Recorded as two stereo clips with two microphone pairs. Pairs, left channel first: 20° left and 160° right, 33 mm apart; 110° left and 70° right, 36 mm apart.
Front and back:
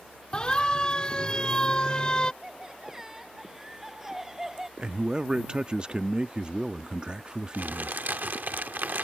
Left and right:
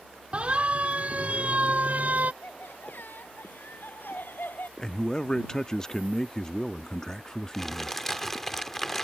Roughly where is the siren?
Ahead right.